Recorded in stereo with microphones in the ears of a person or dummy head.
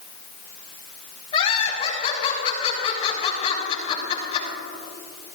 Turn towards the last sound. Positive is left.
turn(degrees=35)  # may be behind; listen again after turning